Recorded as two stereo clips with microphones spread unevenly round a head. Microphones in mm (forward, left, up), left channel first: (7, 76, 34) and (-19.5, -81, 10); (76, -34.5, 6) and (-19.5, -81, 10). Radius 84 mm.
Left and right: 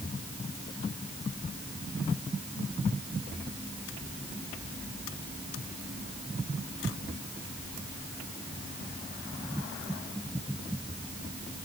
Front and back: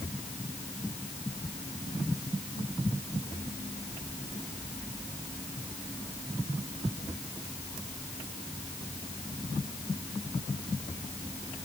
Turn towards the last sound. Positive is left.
No sound to turn to.